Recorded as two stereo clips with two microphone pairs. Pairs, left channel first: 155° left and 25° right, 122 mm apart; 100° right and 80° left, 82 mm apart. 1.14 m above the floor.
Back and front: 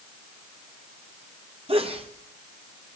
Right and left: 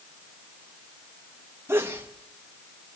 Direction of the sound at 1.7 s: 15° left.